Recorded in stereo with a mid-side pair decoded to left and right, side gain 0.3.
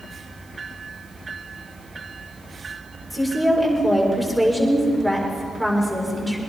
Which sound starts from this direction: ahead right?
A woman speaking, at 3.1 s.